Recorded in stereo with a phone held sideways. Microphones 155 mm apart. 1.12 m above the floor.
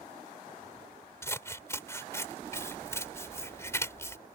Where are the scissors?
15° left (ahead or behind).